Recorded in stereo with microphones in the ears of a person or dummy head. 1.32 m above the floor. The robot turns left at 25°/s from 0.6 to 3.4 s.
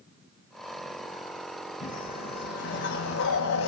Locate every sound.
1.8 s a whoosh: 145° left, 2.5 m; by 3.7 s 105° left, 2.5 m